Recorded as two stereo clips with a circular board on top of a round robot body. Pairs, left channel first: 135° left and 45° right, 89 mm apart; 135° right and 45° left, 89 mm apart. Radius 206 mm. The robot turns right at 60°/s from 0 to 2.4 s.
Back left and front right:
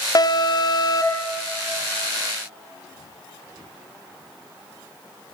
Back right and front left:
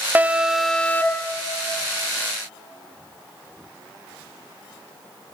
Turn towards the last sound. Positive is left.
turn(degrees=-115)